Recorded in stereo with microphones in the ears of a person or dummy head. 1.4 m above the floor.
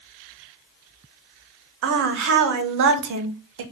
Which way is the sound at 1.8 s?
60° right (ahead or behind).